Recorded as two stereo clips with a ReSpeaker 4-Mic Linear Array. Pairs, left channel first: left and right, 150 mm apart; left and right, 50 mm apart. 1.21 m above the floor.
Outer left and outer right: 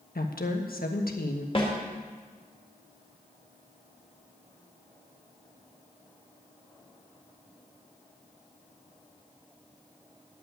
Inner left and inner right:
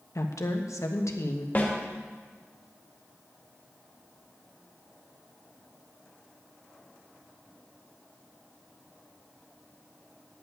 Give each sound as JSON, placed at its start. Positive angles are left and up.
{"t": 0.1, "sound": "a woman speaking", "side_deg": 80, "distance_m": 1.3}
{"t": 1.6, "sound": "a snare drum", "side_deg": 35, "distance_m": 2.5}